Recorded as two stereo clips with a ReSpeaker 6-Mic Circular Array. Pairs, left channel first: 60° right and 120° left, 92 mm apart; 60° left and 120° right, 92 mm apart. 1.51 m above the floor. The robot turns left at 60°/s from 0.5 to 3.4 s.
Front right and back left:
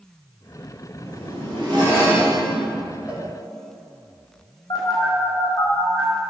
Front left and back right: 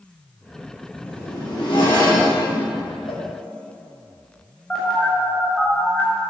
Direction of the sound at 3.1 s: 45° left.